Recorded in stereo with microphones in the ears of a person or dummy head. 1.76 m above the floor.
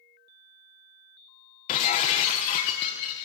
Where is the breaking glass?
25° left (ahead or behind), 0.9 m.